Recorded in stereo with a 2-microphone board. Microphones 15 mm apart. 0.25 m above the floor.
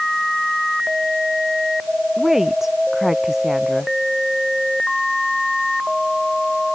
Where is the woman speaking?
20° right (ahead or behind).